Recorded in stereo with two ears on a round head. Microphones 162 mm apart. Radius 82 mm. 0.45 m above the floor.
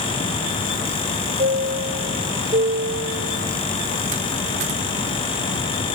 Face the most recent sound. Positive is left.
turn(degrees=-40)  # may be behind; listen again after turning